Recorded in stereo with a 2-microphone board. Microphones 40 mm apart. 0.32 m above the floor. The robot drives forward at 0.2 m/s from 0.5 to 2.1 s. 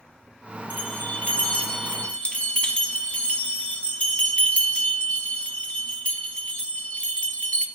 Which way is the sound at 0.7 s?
45° left (ahead or behind).